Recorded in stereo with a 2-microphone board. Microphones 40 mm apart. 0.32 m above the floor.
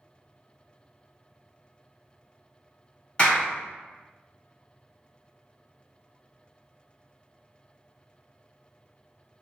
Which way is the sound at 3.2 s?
20° left (ahead or behind).